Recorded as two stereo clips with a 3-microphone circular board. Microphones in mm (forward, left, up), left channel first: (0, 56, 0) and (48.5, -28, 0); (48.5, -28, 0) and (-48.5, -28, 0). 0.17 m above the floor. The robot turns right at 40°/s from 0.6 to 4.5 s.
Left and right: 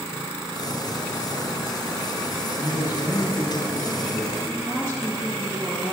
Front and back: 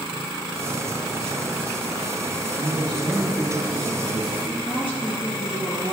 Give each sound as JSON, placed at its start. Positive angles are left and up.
{"t": 2.6, "sound": "a man speaking", "azimuth_deg": 145, "distance_m": 2.0}
{"t": 4.5, "sound": "a woman speaking", "azimuth_deg": -10, "distance_m": 3.0}